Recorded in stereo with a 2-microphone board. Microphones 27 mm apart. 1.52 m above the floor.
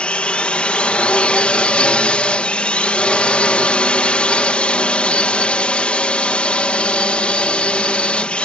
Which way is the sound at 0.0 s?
50° left (ahead or behind).